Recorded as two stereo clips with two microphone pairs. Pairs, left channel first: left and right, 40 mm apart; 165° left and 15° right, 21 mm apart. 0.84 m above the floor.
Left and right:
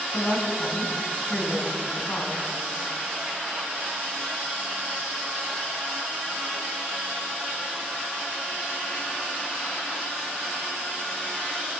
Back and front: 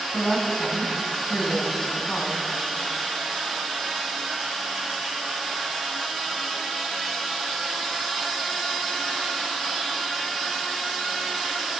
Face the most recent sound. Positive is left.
turn(degrees=145)